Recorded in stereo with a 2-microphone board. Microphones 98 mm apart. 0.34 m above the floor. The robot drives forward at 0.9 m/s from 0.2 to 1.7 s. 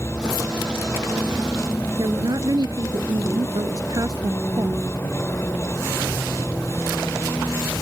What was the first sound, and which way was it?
A vehicle, 25° left (ahead or behind).